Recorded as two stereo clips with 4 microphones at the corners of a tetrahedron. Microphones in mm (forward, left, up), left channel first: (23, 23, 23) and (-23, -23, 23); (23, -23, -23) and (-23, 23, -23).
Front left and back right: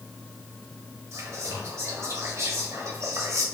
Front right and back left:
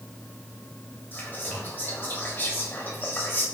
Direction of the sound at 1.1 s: 100° right.